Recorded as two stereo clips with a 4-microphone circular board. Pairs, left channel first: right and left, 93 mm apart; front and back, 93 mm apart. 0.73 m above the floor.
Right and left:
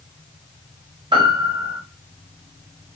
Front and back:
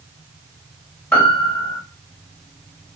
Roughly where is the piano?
Left.